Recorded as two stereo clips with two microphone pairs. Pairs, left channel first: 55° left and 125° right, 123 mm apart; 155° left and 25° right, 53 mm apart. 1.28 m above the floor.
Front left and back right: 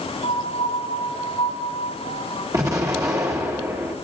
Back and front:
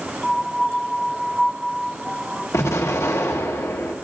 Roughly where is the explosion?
Behind.